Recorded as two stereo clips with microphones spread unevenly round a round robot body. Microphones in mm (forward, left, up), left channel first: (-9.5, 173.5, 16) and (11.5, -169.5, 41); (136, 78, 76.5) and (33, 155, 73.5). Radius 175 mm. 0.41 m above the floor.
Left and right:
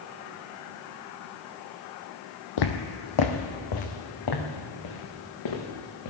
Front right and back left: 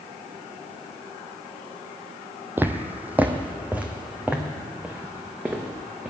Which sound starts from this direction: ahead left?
Footsteps, at 2.6 s.